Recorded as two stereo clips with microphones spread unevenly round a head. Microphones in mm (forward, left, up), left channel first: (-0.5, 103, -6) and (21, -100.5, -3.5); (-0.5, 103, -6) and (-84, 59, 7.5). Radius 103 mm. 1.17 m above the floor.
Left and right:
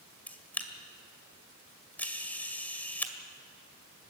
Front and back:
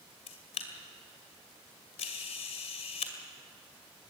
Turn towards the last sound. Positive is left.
turn(degrees=15)